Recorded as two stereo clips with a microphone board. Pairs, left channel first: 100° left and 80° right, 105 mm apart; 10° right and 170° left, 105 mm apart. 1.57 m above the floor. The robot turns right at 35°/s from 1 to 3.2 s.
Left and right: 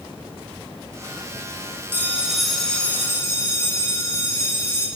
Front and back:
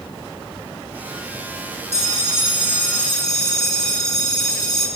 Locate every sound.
1.9 s a bell: 5° right, 4.5 m; by 4.9 s 40° left, 4.5 m